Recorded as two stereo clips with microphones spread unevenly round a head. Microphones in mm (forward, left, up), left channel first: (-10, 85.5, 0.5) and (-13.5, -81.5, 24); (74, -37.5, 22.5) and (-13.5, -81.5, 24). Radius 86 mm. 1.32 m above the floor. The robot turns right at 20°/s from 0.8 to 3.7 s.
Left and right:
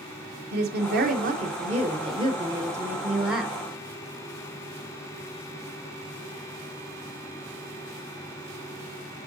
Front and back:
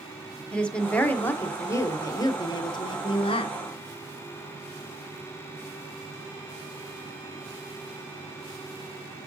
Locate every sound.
0.5 s a woman speaking: 55° right, 1.0 m; by 3.6 s straight ahead, 1.0 m